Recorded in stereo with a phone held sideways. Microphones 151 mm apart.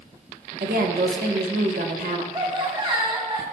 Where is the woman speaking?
85° right, 1.2 m.